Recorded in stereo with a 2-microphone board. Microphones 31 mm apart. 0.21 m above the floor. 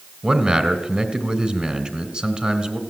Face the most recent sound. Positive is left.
turn(degrees=-35)  # may be behind; listen again after turning